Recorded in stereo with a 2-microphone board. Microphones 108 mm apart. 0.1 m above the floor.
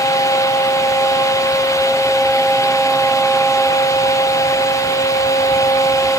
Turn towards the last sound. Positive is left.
No sound to turn to.